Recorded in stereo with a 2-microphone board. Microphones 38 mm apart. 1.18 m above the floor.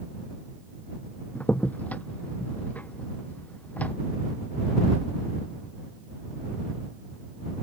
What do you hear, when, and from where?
1.4 s a crack: 40° left (ahead or behind)